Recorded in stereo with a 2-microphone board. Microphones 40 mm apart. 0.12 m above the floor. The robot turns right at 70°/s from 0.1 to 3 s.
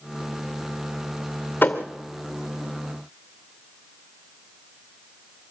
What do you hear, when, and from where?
1.6 s a thud: 50° left (ahead or behind), 2.0 m; by 1.9 s 65° left (ahead or behind), 2.0 m